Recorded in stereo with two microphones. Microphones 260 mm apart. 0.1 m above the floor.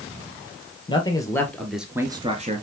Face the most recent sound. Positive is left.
turn(degrees=-35)  # may be behind; listen again after turning